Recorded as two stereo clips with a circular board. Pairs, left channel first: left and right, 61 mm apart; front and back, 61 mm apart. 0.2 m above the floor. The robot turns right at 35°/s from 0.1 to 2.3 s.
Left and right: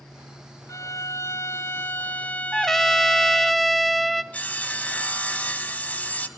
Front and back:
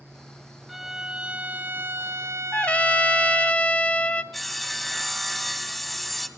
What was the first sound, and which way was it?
A violin, 95° left.